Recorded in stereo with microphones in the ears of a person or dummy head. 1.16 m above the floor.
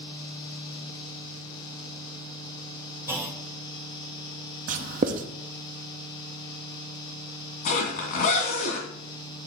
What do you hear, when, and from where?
3.1 s a clunk: 10° right (ahead or behind), 0.8 m
4.7 s writing: 40° right (ahead or behind), 0.7 m
7.7 s a zipper: 45° left (ahead or behind), 2 m